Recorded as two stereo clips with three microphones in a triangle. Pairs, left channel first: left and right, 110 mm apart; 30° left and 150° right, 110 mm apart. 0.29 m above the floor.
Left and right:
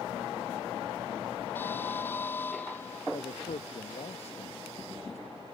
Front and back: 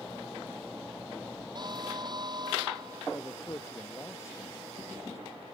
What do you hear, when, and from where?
1.6 s an alarm: 160° left
3.1 s a man speaking: 95° left